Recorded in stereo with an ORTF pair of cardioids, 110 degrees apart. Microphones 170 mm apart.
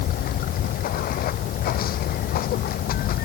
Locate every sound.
0.0 s running water: 60° left